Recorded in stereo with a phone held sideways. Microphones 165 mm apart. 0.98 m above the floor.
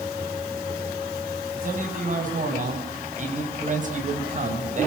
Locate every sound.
1.6 s a man speaking: 55° right (ahead or behind), 7.5 m; by 4.9 s 50° right (ahead or behind), 4.5 m